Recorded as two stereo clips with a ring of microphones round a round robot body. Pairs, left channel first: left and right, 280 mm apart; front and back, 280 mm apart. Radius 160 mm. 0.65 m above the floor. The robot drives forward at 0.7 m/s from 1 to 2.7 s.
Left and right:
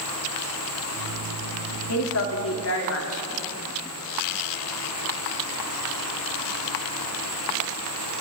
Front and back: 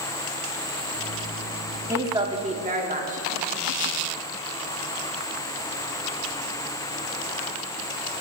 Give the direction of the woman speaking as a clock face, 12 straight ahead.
9 o'clock.